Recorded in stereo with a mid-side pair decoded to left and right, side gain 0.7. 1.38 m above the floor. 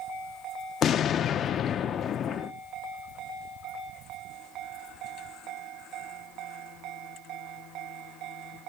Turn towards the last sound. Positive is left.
turn(degrees=40)